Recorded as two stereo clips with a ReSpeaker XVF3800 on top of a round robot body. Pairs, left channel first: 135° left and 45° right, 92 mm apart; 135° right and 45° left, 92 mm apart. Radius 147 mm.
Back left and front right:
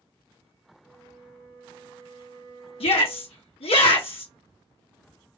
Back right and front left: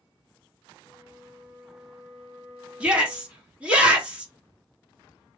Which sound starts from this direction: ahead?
A flute, at 0.8 s.